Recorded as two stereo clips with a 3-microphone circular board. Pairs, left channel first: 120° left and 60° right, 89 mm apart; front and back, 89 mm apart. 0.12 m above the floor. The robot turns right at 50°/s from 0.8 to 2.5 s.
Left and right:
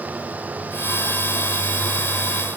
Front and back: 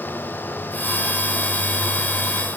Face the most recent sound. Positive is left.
No sound to turn to.